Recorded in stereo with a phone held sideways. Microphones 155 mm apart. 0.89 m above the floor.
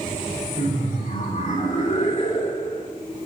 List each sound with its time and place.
0.6 s laughter: 70° left (ahead or behind), 3.5 m; by 2.9 s 50° left (ahead or behind), 3 m